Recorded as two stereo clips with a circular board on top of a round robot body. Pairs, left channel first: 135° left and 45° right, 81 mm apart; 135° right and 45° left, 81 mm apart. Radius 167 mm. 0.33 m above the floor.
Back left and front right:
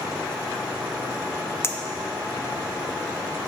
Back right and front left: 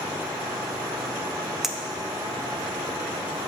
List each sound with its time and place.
1.6 s a clink: 125° left, 0.7 m